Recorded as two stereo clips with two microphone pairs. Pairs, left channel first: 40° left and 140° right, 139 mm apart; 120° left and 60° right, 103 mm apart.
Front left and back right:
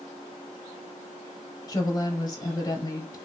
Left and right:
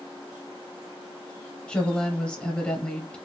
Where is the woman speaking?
50° left, 1.0 m.